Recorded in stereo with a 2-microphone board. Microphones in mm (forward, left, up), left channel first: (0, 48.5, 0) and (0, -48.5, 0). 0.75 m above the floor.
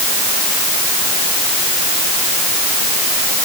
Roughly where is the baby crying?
I don't hear a baby crying.